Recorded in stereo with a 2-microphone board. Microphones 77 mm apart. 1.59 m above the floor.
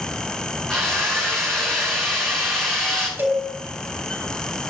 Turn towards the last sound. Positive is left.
turn(degrees=-25)  # may be behind; listen again after turning